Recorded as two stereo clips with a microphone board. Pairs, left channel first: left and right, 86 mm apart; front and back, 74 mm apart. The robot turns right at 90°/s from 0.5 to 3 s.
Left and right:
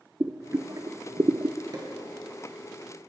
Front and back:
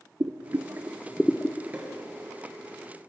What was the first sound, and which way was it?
Boiling, 145° right.